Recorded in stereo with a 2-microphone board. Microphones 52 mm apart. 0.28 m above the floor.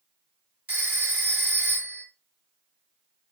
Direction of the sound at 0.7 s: 30° right (ahead or behind).